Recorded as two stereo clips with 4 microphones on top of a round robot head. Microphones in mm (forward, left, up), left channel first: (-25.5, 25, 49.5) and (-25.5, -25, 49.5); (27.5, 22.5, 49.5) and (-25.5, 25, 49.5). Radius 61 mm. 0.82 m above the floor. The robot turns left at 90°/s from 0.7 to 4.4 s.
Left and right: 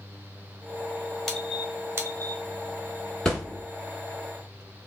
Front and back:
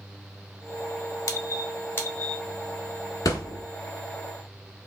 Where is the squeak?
10° left, 0.8 m; by 2.4 s 95° right, 0.8 m.